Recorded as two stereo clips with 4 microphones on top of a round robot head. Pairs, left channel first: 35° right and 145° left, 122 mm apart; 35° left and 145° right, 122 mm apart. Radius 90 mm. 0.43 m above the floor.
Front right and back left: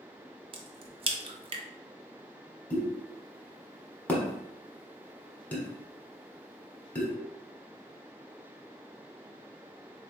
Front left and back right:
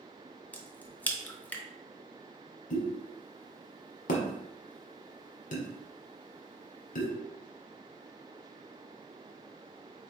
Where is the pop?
45° left, 1.1 m.